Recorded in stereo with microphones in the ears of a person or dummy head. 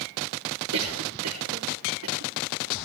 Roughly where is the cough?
Right.